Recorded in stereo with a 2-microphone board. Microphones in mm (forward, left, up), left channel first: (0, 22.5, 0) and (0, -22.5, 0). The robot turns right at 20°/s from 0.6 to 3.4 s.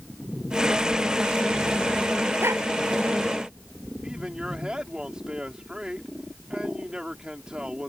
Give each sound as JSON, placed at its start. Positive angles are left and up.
{"t": 2.4, "sound": "a dog barking", "side_deg": -75}
{"t": 4.0, "sound": "a man speaking", "side_deg": -20}